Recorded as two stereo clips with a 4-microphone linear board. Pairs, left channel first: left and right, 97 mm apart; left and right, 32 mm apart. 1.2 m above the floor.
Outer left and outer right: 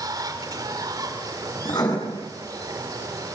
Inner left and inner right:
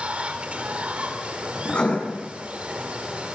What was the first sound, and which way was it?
Running water, 40° right (ahead or behind).